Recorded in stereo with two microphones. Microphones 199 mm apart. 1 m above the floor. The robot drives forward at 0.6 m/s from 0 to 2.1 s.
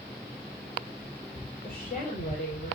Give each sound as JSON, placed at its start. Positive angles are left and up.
{"t": 1.6, "sound": "a woman speaking", "side_deg": 45, "distance_m": 3.5}